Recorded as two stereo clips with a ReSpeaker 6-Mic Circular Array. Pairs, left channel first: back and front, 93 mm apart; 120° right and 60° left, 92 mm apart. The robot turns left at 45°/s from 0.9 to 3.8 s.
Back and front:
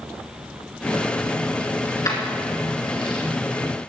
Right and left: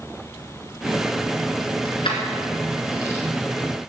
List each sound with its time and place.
1.9 s keys jangling: 120° right, 2.5 m; by 3.2 s straight behind, 2.5 m